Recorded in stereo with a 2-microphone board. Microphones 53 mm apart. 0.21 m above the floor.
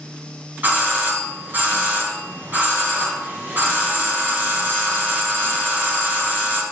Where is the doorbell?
35° right (ahead or behind), 2 m.